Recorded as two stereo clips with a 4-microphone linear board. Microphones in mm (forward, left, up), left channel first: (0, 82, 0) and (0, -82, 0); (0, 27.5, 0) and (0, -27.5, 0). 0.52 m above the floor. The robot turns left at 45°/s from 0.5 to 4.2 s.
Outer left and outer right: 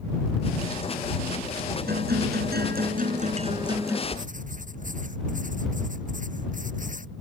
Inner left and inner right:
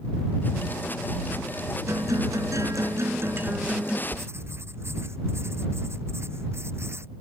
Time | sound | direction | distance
1.9 | a guitar | 70° right | ?
4.1 | writing | 50° right (ahead or behind) | ?